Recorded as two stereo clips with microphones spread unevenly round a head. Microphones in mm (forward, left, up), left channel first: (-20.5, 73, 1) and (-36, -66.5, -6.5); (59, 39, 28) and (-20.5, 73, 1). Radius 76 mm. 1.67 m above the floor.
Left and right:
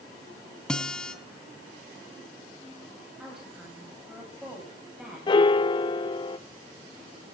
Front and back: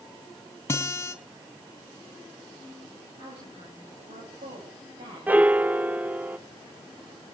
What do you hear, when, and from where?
0.7 s a guitar: 5° left, 2.5 m
3.2 s a woman speaking: 175° left, 8.5 m
5.3 s a piano: 70° left, 0.7 m